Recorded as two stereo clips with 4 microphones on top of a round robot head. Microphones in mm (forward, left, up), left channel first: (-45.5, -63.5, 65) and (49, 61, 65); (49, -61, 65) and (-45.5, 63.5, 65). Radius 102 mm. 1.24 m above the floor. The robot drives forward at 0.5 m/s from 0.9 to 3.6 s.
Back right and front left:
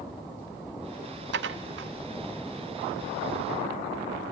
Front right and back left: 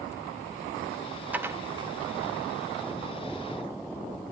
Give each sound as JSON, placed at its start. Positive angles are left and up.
{"t": 1.3, "sound": "dishes clattering", "azimuth_deg": 45, "distance_m": 0.7}